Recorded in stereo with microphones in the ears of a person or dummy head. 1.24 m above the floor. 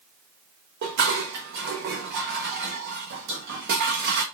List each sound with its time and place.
0.8 s dishes clattering: 55° right (ahead or behind), 0.8 m